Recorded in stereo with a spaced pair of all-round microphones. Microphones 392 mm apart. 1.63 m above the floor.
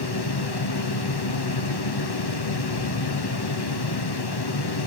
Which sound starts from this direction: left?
A fan, at 0.0 s.